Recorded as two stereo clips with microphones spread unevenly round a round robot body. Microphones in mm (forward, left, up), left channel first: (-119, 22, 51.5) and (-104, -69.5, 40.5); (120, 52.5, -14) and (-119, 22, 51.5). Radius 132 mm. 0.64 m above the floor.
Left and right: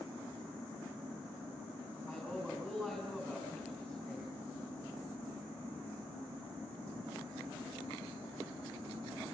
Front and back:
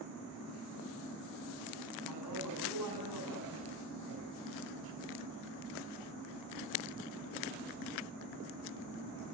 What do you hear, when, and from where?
2.1 s a man speaking: straight behind, 6.5 m